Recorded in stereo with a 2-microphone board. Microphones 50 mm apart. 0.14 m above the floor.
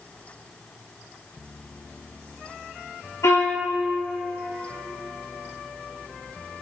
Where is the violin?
80° left, 2.5 m.